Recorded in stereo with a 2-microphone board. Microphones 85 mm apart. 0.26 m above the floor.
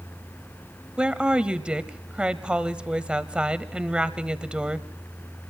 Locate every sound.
1.0 s a woman speaking: 15° right (ahead or behind), 0.9 m